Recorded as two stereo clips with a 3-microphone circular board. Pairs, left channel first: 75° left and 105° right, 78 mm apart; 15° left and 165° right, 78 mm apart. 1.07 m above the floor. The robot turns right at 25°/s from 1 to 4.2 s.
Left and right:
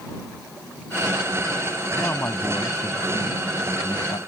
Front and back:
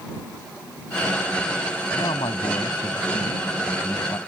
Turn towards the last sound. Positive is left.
turn(degrees=65)